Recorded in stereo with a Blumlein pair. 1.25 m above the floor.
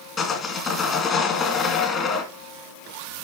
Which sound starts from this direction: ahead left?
Sawing, at 0.2 s.